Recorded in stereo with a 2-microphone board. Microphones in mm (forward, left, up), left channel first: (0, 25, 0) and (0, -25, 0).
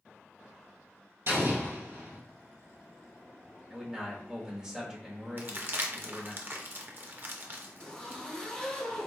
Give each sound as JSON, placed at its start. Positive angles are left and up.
{"t": 1.3, "sound": "an explosion", "side_deg": -50, "distance_m": 1.7}
{"t": 3.7, "sound": "a man speaking", "side_deg": -15, "distance_m": 1.0}
{"t": 5.4, "sound": "crumpling", "side_deg": -40, "distance_m": 0.5}
{"t": 7.8, "sound": "a zipper", "side_deg": 20, "distance_m": 1.2}